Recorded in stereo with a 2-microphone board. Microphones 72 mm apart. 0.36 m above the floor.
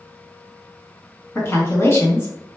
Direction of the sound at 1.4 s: 35° left (ahead or behind).